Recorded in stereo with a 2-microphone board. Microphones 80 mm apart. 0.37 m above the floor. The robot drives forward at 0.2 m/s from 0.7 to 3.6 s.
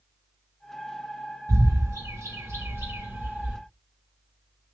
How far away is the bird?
About 0.7 m.